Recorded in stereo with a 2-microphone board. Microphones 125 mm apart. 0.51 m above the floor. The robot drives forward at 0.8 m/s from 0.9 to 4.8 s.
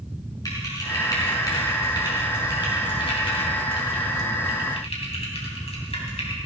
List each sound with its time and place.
0.5 s typing on a keyboard: 30° left (ahead or behind), 5.5 m; by 6.4 s 60° left (ahead or behind), 3.5 m